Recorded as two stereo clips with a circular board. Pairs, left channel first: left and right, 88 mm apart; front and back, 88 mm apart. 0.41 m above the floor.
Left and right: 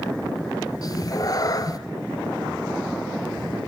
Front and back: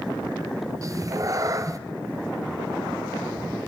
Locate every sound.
0.8 s a cat meowing: 135° left, 0.8 m